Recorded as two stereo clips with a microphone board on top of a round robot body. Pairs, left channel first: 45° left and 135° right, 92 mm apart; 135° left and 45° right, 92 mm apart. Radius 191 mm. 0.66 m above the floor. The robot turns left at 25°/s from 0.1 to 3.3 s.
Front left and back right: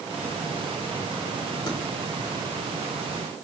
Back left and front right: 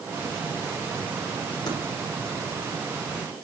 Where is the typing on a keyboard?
90° left, 8 m.